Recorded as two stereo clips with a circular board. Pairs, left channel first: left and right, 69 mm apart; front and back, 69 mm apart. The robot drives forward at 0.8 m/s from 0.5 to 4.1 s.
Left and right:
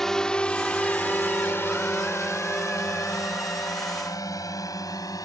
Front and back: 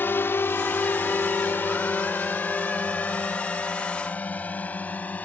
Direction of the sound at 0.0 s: 10° left.